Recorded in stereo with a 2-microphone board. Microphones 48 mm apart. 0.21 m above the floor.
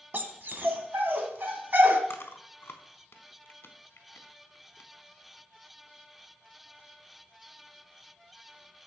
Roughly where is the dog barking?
Right.